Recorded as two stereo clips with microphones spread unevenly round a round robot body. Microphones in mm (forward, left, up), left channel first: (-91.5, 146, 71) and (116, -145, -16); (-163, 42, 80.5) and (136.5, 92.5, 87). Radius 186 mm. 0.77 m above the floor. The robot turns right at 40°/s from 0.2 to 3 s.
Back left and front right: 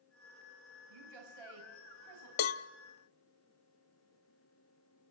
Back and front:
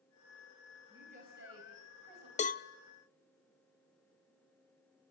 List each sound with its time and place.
0.9 s a woman speaking: 70° right, 4.5 m; by 2.3 s 15° right, 4.5 m
2.4 s a cowbell: 120° left, 0.7 m; by 2.7 s 130° left, 0.7 m